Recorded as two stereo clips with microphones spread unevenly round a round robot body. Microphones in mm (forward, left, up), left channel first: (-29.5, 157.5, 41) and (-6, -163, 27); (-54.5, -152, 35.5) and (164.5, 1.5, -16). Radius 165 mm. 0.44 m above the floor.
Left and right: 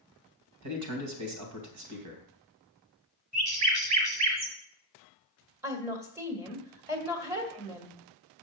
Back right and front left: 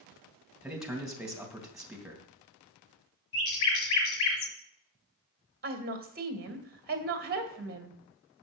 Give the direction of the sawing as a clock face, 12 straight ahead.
I don't hear sawing.